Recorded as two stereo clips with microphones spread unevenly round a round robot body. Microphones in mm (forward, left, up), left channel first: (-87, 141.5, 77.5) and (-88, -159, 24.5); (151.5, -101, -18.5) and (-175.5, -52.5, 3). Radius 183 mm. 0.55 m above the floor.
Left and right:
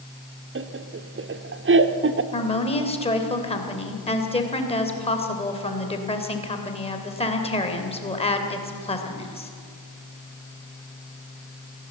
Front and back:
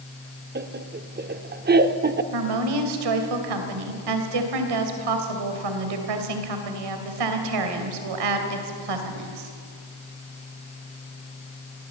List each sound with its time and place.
0.6 s laughter: 130° right, 1.2 m
2.3 s a woman speaking: 165° left, 3 m